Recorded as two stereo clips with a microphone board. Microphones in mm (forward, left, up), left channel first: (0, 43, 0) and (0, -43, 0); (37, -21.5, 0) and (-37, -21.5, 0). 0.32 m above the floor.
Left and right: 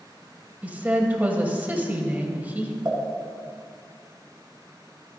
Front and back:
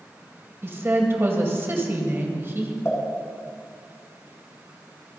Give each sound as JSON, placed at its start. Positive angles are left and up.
{"t": 0.6, "sound": "a woman speaking", "azimuth_deg": -150, "distance_m": 1.7}
{"t": 2.9, "sound": "a pop", "azimuth_deg": -45, "distance_m": 3.5}